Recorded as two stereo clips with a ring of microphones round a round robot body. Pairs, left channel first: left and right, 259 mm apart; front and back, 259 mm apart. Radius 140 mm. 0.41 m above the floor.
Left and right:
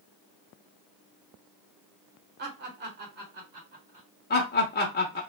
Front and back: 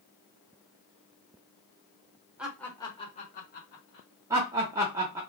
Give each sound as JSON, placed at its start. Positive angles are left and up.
{"t": 2.4, "sound": "laughter", "azimuth_deg": -95, "distance_m": 1.2}
{"t": 4.3, "sound": "laughter", "azimuth_deg": 105, "distance_m": 0.9}